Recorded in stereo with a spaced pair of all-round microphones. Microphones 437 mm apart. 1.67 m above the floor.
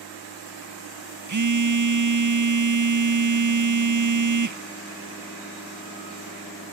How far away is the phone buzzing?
About 0.5 m.